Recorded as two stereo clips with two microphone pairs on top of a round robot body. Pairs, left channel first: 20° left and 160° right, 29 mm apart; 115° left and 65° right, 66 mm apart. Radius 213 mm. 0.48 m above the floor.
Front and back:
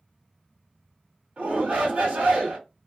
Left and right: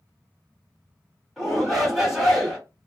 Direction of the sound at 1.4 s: 155° right.